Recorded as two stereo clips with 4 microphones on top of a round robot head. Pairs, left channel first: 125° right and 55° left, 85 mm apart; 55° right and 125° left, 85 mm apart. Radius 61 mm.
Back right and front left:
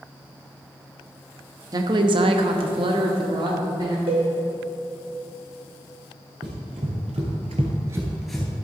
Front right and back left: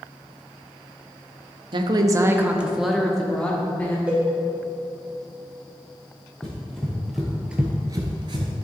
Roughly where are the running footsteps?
Ahead left.